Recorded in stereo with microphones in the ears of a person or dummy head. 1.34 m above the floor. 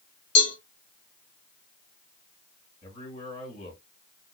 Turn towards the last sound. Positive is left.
turn(degrees=40)  # may be behind; listen again after turning